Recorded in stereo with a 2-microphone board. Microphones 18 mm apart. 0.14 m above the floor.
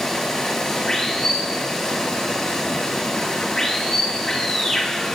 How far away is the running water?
About 5 m.